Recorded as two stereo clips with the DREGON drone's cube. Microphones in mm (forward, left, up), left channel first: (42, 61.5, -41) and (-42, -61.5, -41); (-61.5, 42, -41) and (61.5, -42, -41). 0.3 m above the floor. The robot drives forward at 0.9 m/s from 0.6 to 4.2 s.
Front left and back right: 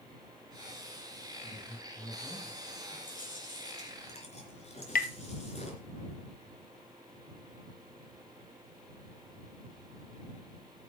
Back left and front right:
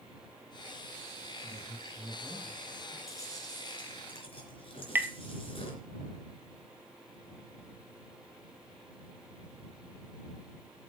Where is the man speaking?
15° left, 8 m; by 3.0 s 20° left, 7 m.